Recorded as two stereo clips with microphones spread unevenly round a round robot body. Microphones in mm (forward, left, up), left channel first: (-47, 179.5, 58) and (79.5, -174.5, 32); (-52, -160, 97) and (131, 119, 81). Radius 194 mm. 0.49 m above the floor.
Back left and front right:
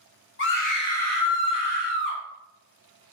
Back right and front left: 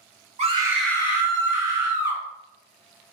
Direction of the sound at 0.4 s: 90° left.